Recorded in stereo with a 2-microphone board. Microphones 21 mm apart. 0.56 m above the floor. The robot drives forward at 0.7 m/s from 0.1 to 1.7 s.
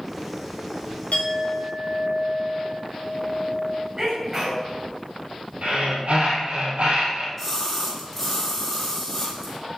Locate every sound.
1.1 s a clink: 75° left (ahead or behind), 2 m
4.0 s a sneeze: 25° right (ahead or behind), 3 m
5.6 s breathing: 70° right (ahead or behind), 3 m
7.4 s a splash: 10° left (ahead or behind), 4 m